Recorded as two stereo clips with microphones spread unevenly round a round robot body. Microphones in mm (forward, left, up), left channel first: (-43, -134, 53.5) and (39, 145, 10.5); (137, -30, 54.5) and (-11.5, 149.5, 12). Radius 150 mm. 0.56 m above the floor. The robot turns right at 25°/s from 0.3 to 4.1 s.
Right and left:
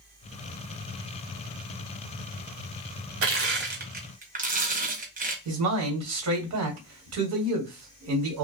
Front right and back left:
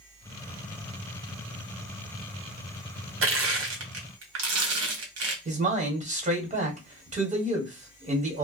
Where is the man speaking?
85° left, 1.6 m.